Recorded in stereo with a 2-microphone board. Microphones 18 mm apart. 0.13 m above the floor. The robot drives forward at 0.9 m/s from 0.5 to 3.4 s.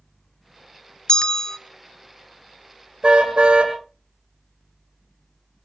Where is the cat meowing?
No cat meowing in this recording.